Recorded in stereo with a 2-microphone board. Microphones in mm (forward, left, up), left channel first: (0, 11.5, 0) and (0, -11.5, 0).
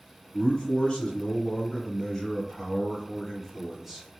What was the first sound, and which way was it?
A man speaking, 35° left (ahead or behind).